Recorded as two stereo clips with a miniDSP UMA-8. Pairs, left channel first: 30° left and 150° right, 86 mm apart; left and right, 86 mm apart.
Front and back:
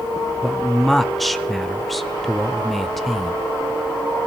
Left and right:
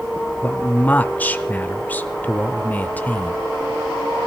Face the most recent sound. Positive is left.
turn(degrees=115)